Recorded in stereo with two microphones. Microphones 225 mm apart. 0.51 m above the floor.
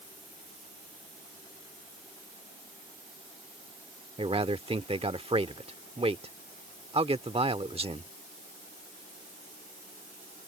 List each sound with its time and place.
4.2 s a man speaking: 25° right (ahead or behind)